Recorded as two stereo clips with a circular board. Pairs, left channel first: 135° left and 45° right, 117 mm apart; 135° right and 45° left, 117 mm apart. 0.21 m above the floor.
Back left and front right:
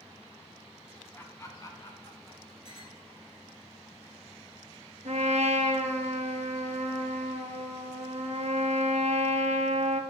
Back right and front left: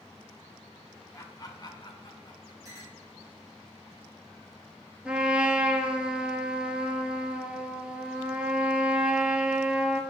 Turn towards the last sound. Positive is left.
turn(degrees=-35)